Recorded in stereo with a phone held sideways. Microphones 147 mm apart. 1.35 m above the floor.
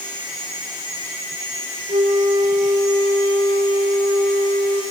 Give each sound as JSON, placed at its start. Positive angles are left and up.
{"t": 1.9, "sound": "a flute", "side_deg": -45, "distance_m": 4.5}